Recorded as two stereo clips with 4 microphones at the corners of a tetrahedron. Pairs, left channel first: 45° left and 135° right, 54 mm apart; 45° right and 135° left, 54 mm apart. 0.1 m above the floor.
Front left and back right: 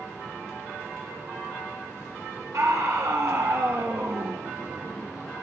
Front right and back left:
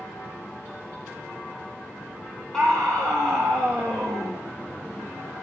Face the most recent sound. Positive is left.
turn(degrees=-115)